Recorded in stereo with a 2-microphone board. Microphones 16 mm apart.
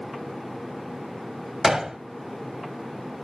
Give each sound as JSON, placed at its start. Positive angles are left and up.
{"t": 1.6, "sound": "a gunshot", "side_deg": -40, "distance_m": 0.9}